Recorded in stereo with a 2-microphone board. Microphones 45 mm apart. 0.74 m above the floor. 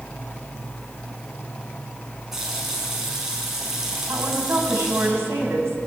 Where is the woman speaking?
75° right (ahead or behind), 4 m.